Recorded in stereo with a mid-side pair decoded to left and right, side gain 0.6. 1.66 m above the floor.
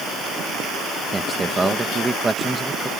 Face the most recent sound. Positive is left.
turn(degrees=-20)